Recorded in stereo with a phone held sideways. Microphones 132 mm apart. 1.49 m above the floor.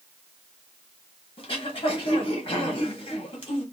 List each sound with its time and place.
1.4 s throat clearing: 45° left (ahead or behind), 0.9 m